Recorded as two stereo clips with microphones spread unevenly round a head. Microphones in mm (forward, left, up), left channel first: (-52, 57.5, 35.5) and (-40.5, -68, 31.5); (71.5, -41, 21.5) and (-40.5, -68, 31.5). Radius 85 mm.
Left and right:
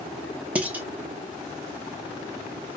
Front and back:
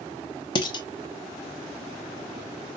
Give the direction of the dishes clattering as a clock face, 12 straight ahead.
12 o'clock.